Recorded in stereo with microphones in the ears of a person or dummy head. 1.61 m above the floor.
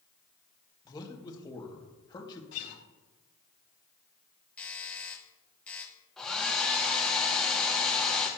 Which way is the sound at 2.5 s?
75° left (ahead or behind).